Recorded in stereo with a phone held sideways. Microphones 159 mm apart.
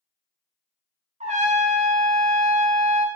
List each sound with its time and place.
1.2 s a trumpet: 45° right (ahead or behind), 0.5 m